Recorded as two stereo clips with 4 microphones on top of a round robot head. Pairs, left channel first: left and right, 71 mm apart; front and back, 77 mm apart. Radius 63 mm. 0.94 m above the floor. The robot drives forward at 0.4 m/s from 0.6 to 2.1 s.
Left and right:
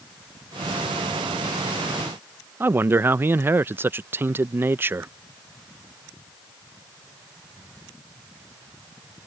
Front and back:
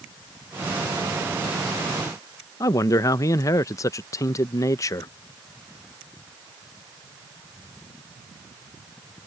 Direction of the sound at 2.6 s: 35° right.